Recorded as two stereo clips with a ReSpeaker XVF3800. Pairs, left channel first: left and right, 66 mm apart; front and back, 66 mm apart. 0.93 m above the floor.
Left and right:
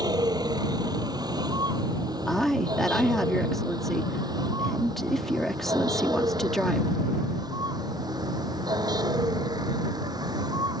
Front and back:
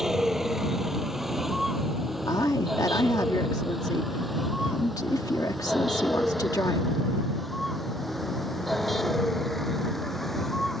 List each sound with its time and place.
0.0 s a vehicle: 95° right; by 10.8 s 85° right
2.3 s a woman speaking: 5° left